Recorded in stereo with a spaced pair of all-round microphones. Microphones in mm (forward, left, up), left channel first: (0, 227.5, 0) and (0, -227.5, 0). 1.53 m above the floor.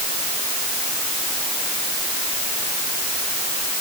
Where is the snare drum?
No snare drum in this recording.